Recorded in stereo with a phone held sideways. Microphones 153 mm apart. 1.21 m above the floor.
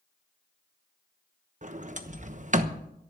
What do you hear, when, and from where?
1.6 s a sliding door: 50° right (ahead or behind), 1.0 m